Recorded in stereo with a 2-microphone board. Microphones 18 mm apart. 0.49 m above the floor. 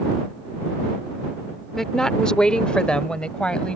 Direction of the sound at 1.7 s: 20° left (ahead or behind).